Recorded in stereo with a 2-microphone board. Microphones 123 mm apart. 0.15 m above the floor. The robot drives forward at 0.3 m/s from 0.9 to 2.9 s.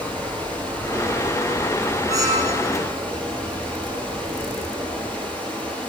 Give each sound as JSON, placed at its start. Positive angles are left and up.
{"t": 0.0, "sound": "running water", "side_deg": 10, "distance_m": 6.5}
{"t": 2.1, "sound": "a squeak", "side_deg": -30, "distance_m": 4.0}